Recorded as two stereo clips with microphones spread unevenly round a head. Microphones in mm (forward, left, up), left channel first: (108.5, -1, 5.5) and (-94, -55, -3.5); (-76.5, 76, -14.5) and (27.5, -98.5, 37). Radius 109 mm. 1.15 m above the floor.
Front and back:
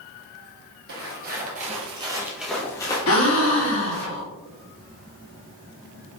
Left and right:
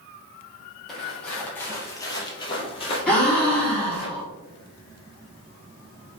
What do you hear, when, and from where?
0.9 s footsteps: 140° right, 1.7 m; by 4.1 s 50° left, 1.9 m
3.1 s a gasp: 40° left, 1.2 m